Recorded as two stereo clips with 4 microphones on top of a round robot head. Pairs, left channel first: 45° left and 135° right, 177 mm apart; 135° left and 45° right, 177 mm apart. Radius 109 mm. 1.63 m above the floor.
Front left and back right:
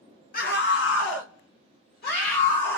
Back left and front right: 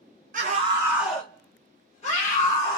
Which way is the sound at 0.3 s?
Straight ahead.